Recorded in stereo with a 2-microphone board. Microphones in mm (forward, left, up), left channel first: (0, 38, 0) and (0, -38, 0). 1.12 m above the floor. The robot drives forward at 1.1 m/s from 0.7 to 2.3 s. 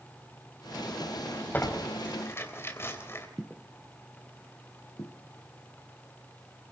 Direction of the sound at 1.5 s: 25° left (ahead or behind).